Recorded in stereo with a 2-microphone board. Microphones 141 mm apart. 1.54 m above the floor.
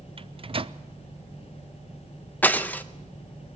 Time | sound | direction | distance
0.2 | a microwave | 40° right (ahead or behind) | 0.5 m
2.4 | breaking glass | 10° left (ahead or behind) | 0.8 m